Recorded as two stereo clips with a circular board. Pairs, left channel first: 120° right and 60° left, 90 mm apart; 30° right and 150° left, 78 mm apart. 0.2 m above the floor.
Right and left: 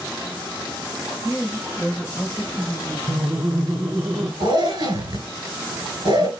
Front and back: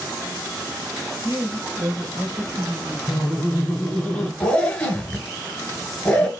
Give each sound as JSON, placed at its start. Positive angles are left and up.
{"t": 1.2, "sound": "a woman speaking", "azimuth_deg": 165, "distance_m": 3.0}
{"t": 3.1, "sound": "laughter", "azimuth_deg": 10, "distance_m": 1.3}
{"t": 4.4, "sound": "a zipper", "azimuth_deg": 45, "distance_m": 1.2}